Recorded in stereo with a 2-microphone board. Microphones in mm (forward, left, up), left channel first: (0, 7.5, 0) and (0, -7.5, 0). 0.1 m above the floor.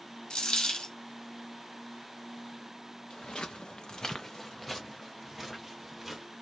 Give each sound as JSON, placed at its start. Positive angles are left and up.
{"t": 0.3, "sound": "a dropped coin", "side_deg": 65, "distance_m": 1.0}
{"t": 3.1, "sound": "footsteps", "side_deg": 80, "distance_m": 0.6}